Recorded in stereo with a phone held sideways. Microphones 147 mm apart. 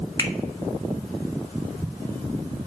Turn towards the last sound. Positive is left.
turn(degrees=25)  # may be behind; listen again after turning